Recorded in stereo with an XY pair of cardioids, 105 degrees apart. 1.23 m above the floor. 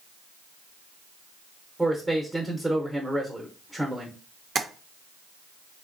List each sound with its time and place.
1.8 s a man speaking: 10° right, 0.7 m
4.5 s tapping: 35° right, 0.5 m